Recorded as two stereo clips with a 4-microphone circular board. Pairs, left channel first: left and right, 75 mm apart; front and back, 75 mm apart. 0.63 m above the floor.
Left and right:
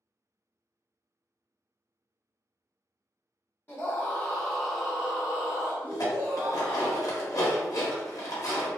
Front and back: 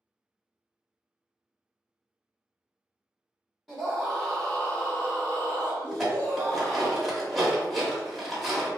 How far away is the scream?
About 0.9 m.